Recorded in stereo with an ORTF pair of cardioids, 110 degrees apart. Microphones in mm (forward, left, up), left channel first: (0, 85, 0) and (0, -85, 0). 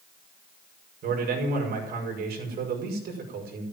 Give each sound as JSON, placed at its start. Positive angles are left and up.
{"t": 1.0, "sound": "a man speaking", "azimuth_deg": -65, "distance_m": 6.0}